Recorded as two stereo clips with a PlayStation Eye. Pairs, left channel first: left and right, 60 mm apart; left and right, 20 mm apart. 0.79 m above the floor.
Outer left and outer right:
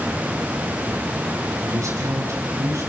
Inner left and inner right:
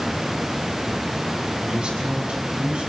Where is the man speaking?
60° right (ahead or behind), 7 m.